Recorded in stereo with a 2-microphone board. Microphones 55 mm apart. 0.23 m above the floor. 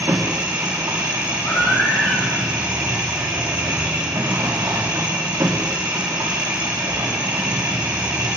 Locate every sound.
0.0 s an engine running: 85° right, 4.5 m
1.4 s a baby crying: 45° left (ahead or behind), 8.5 m